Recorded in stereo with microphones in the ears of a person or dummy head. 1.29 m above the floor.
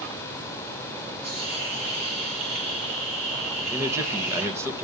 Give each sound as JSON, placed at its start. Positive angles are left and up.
{"t": 1.2, "sound": "a hiss", "side_deg": -35, "distance_m": 3.5}
{"t": 3.7, "sound": "a man speaking", "side_deg": -15, "distance_m": 1.2}